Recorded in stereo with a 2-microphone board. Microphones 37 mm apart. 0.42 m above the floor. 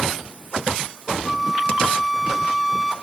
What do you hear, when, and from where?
1.2 s a flute: 10° right (ahead or behind), 0.9 m